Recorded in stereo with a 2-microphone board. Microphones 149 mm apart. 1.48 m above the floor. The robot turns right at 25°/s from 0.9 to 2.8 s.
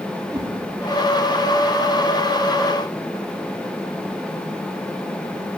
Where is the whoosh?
25° right (ahead or behind), 3.5 m.